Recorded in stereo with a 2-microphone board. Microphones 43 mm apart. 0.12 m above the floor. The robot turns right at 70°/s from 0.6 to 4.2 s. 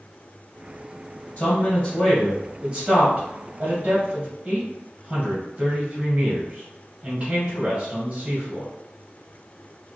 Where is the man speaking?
30° left (ahead or behind), 1.5 m; by 8.7 s 25° right (ahead or behind), 1.5 m.